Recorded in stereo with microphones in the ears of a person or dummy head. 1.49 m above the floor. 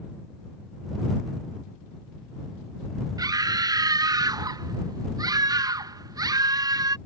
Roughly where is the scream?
Centre.